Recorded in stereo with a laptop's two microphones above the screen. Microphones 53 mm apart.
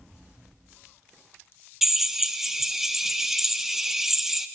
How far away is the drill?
About 0.8 m.